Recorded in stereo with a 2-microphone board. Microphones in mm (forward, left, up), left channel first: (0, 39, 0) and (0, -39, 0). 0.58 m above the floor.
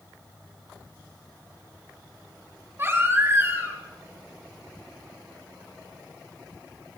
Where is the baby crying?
35° right (ahead or behind), 3.5 m.